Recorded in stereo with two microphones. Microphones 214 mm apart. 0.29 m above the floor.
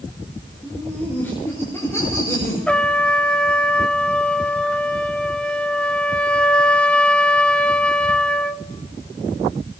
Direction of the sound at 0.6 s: 5° left (ahead or behind).